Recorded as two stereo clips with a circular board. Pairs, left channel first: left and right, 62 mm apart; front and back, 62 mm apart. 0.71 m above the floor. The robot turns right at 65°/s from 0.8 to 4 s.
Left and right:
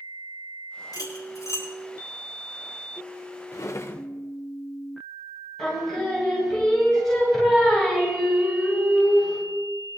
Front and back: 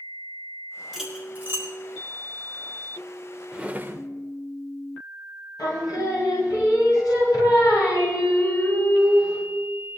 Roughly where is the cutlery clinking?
Left.